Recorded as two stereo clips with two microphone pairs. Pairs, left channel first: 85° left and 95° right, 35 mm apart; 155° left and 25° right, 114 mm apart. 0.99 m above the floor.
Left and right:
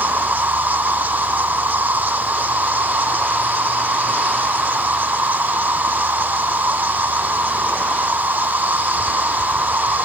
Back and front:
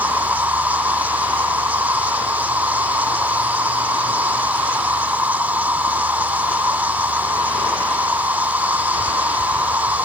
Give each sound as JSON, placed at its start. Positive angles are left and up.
{"t": 0.0, "sound": "an insect", "azimuth_deg": -100}